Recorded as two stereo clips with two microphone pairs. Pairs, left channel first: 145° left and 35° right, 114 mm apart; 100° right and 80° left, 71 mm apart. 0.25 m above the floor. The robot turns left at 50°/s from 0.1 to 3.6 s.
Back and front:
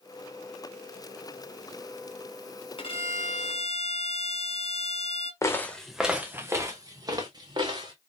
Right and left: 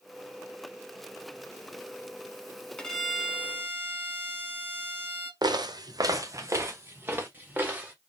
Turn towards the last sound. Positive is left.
turn(degrees=15)